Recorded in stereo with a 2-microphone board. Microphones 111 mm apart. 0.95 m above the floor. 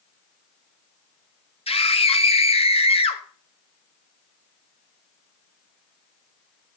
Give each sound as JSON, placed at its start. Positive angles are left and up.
{"t": 1.7, "sound": "a scream", "side_deg": 60, "distance_m": 1.4}